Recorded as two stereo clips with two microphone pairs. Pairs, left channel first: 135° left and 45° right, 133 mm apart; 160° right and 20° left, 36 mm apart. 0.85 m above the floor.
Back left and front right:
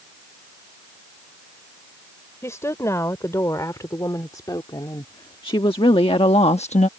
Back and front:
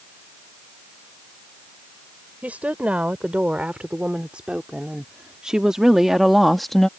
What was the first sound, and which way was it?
A woman speaking, 65° left.